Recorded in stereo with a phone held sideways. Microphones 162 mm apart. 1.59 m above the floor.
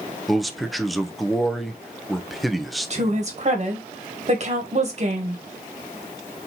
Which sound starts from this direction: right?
A woman speaking, at 2.9 s.